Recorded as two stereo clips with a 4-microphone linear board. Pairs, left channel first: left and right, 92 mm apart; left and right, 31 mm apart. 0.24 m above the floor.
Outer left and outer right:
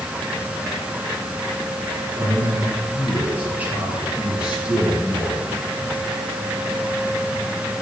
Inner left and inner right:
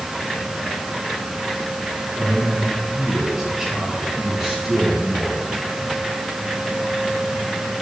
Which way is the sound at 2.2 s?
30° right (ahead or behind).